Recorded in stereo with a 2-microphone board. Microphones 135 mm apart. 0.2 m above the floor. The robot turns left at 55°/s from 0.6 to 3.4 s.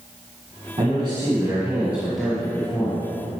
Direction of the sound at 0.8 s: 105° right.